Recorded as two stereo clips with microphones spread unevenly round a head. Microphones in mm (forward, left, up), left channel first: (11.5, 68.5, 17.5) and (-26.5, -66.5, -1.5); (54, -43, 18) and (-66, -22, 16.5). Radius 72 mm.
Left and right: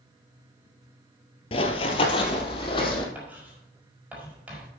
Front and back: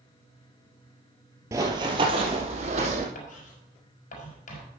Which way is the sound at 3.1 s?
25° right.